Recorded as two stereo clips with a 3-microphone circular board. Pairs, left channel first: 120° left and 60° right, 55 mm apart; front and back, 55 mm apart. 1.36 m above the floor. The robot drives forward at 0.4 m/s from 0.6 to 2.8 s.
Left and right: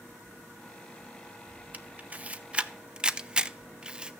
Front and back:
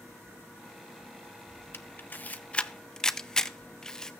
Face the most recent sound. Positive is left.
turn(degrees=-50)